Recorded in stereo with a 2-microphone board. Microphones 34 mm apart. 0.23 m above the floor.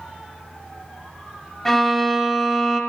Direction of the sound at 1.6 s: 10° left (ahead or behind).